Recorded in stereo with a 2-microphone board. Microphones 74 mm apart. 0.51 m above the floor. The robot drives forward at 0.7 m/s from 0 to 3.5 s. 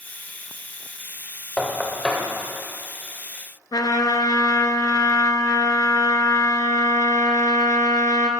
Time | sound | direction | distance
1.6 | knocking | 15° left (ahead or behind) | 1.5 m
3.7 | a trumpet | 65° left (ahead or behind) | 1.0 m